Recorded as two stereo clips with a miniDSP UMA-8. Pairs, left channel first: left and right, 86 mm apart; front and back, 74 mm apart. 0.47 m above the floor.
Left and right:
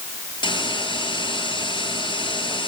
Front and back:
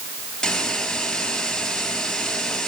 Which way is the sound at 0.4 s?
85° left.